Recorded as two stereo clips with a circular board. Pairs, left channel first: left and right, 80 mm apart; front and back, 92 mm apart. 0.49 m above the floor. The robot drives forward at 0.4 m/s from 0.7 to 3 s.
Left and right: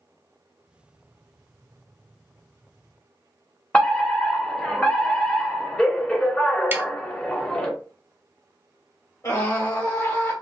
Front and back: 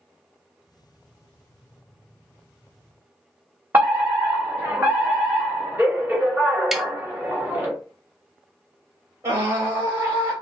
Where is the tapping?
100° right, 0.5 m.